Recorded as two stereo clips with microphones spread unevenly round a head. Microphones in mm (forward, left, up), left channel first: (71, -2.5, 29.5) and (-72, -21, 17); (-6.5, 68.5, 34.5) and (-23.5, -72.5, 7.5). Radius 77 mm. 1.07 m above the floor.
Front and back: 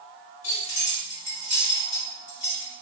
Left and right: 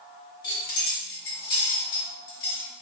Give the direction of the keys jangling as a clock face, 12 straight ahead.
10 o'clock.